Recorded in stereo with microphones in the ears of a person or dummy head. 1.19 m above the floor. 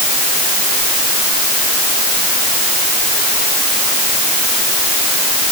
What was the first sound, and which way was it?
Only background noise.